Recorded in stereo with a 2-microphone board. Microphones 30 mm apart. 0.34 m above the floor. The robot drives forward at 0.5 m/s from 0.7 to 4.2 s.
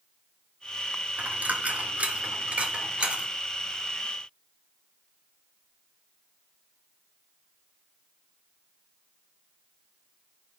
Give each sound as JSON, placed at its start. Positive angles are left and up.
{"t": 1.2, "sound": "a dropped coin", "side_deg": -65, "distance_m": 1.4}